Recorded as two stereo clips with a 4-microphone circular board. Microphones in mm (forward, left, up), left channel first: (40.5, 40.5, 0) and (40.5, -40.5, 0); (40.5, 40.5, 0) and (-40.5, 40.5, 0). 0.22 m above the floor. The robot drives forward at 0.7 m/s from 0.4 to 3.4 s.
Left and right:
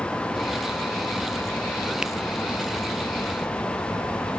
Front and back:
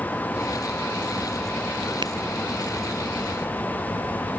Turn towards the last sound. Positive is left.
turn(degrees=-175)